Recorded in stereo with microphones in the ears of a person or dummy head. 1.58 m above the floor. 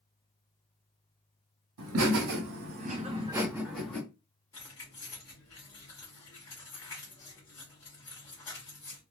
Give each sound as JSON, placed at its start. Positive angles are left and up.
{"t": 1.8, "sound": "laughter", "side_deg": -80, "distance_m": 1.0}
{"t": 4.5, "sound": "keys jangling", "side_deg": 15, "distance_m": 1.6}